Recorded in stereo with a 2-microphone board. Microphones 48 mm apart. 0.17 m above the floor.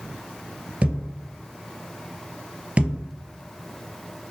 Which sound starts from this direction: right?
A thud, at 0.8 s.